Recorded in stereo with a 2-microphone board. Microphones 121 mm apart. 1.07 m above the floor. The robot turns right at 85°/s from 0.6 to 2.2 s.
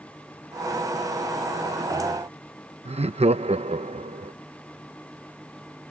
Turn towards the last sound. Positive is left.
turn(degrees=-60)  # may be behind; listen again after turning